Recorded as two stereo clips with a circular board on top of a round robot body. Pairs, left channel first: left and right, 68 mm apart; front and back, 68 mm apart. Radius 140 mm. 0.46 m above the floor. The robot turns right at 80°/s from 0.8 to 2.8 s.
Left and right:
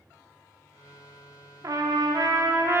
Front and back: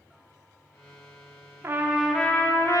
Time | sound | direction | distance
1.6 | a trumpet | 125° right | 0.7 m